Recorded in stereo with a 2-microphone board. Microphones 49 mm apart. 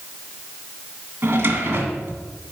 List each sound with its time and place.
1.2 s a drawer: 45° right (ahead or behind), 1.9 m